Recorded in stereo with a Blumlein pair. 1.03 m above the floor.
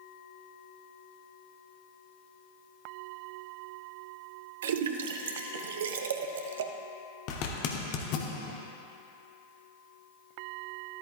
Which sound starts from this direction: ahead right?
A splash, at 4.6 s.